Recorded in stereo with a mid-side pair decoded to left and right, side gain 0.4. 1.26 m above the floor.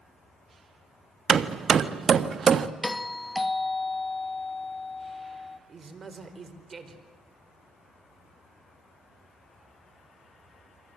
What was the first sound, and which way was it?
Hammering, 55° right.